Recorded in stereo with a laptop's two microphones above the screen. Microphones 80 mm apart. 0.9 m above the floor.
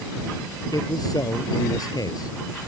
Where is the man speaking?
50° left (ahead or behind).